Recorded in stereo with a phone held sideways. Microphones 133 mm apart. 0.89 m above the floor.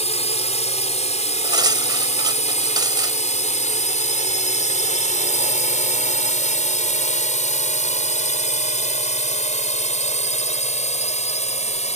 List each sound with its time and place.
0.0 s a drone: 55° left (ahead or behind); by 12.0 s 60° left (ahead or behind)
1.4 s cutlery clinking: 35° right (ahead or behind)